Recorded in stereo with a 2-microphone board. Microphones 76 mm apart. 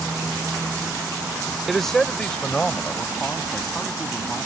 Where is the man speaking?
Centre (ahead or behind); by 4.5 s 20° left (ahead or behind).